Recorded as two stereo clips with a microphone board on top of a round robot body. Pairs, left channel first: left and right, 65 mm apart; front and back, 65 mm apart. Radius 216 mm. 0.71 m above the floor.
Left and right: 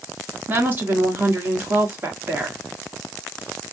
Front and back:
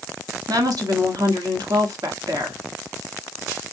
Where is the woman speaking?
150° right, 1.9 m.